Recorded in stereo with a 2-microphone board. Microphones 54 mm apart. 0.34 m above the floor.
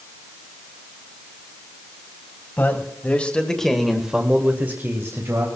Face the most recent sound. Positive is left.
turn(degrees=-55)  # may be behind; listen again after turning